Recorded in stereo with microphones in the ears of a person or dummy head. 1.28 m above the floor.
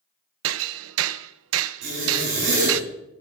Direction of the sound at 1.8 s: 80° right.